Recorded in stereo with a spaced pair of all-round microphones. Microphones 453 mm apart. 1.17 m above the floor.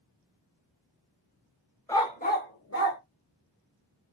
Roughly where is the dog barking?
Centre.